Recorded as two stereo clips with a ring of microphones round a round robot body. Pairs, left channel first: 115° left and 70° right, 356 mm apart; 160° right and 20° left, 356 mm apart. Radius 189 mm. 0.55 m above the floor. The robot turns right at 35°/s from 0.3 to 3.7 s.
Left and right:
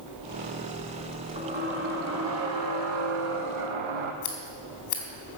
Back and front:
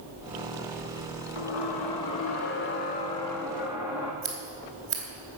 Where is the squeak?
145° right, 1.6 m; by 4.1 s 60° right, 1.6 m.